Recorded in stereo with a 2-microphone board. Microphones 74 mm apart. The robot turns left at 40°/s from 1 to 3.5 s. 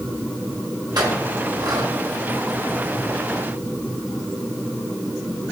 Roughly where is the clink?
Right.